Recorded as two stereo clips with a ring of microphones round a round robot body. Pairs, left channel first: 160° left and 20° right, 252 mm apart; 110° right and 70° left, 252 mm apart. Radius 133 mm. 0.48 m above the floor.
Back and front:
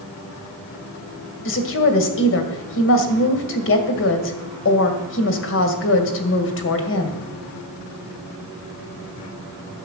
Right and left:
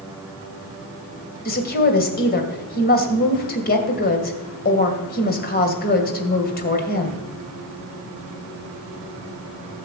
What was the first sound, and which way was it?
A woman speaking, 165° right.